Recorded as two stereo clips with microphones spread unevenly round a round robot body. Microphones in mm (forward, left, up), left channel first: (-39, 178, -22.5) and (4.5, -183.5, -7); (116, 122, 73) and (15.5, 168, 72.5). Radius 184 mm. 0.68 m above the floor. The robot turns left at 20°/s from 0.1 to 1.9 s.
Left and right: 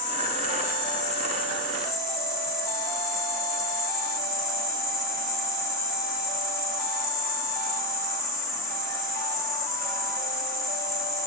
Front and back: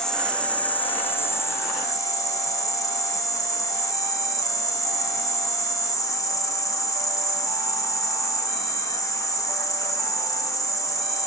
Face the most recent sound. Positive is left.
turn(degrees=20)